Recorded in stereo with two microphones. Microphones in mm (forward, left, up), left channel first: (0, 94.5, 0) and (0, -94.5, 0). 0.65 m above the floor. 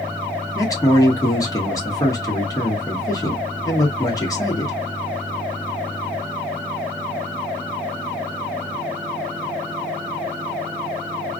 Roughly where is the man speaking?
Centre.